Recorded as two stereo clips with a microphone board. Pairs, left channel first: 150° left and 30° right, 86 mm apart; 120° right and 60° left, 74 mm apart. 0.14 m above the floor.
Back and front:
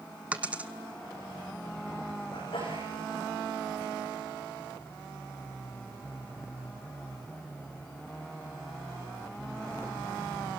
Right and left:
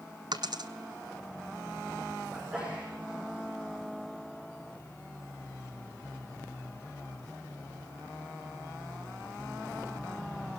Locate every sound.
0.3 s a dropped coin: 45° left, 0.8 m
2.3 s a sneeze: 135° left, 7 m